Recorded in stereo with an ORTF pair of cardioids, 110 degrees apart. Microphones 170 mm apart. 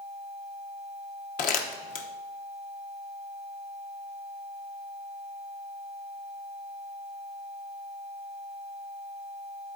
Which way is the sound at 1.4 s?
55° left.